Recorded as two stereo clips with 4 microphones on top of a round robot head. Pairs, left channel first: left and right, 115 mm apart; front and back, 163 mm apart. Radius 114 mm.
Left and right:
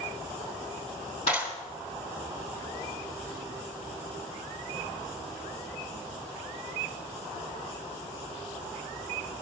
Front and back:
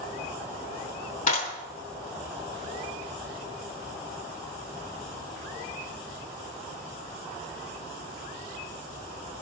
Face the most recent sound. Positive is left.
turn(degrees=35)